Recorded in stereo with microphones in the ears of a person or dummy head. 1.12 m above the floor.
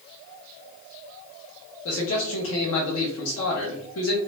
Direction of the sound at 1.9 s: 80° left.